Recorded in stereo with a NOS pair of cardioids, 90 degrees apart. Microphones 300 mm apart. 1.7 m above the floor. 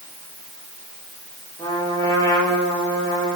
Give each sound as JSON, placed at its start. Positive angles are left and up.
{"t": 1.6, "sound": "a trumpet", "azimuth_deg": 10, "distance_m": 6.0}